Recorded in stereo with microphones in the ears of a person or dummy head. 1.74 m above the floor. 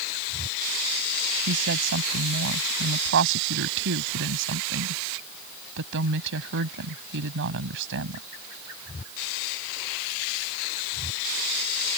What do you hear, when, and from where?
1.5 s a woman speaking: 65° right (ahead or behind)